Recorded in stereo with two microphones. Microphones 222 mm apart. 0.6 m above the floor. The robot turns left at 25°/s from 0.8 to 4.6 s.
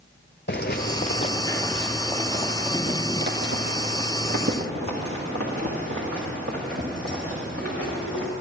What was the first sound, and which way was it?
Footsteps, 50° left (ahead or behind).